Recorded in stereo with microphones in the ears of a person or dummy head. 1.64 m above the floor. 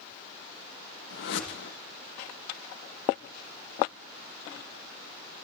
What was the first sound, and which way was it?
A whoosh, 65° left (ahead or behind).